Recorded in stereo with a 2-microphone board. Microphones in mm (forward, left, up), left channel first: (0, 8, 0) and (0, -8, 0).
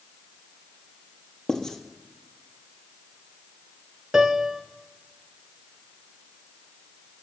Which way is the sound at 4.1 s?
50° right (ahead or behind).